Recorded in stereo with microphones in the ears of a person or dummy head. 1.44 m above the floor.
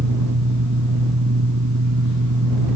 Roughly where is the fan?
Right.